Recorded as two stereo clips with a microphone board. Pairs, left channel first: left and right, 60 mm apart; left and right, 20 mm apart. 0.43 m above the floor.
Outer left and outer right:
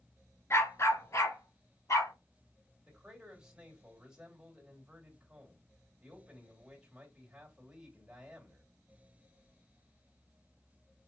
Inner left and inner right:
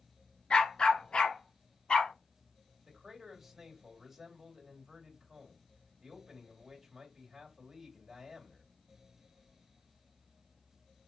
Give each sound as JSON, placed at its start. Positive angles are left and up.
{"t": 0.5, "sound": "a dog barking", "side_deg": 50, "distance_m": 2.0}
{"t": 2.9, "sound": "a man speaking", "side_deg": -15, "distance_m": 2.0}